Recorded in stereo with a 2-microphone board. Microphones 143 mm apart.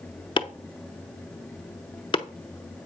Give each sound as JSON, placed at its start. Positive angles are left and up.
{"t": 0.4, "sound": "chopping", "side_deg": 35, "distance_m": 0.6}